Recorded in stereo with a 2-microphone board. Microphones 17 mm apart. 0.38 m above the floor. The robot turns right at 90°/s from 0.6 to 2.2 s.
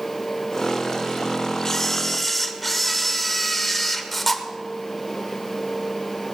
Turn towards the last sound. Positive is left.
turn(degrees=5)  # may be behind; listen again after turning